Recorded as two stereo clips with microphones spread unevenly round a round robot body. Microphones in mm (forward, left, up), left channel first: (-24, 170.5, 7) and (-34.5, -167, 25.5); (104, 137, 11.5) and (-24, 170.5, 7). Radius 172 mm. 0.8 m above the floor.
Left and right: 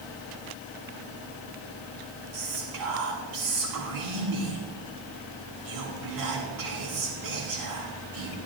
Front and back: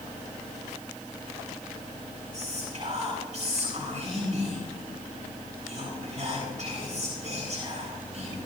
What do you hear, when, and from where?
2.3 s whispering: 120° right, 8.5 m